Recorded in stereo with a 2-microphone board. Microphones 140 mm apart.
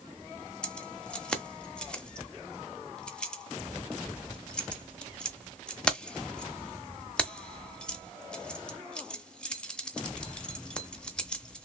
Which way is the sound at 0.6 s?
5° left (ahead or behind).